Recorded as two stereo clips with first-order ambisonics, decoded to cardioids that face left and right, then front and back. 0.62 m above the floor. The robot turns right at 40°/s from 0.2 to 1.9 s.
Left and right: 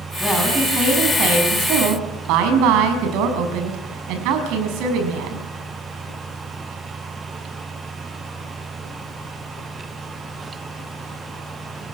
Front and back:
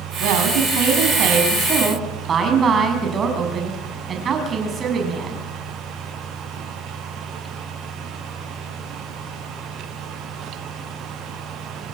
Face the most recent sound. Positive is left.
turn(degrees=-115)